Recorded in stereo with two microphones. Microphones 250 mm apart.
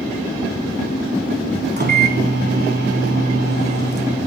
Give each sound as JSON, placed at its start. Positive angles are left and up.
{"t": 1.8, "sound": "a microwave", "side_deg": -40, "distance_m": 0.9}